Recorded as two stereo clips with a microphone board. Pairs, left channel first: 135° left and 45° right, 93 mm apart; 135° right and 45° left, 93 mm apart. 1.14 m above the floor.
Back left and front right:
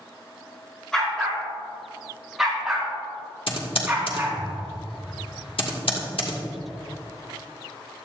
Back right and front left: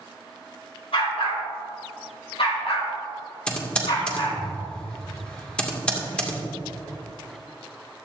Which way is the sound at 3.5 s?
145° left.